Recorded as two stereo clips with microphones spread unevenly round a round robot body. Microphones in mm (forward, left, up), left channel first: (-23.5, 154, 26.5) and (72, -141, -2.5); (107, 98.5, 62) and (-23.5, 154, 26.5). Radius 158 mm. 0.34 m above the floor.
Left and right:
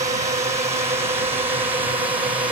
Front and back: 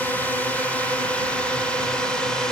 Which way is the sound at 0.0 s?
120° right.